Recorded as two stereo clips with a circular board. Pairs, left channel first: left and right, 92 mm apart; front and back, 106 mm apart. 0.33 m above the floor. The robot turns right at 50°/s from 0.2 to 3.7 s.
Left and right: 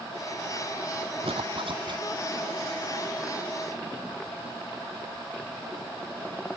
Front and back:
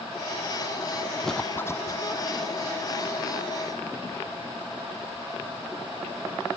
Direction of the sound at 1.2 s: 90° right.